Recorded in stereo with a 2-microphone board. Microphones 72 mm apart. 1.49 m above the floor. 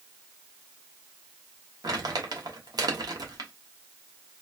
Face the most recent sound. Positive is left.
turn(degrees=-70)  # may be behind; listen again after turning